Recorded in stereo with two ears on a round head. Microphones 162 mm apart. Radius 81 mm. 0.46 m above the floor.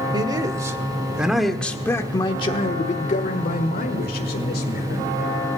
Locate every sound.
0.1 s a man speaking: 25° right (ahead or behind), 1.5 m; by 5.6 s 55° left (ahead or behind), 2.5 m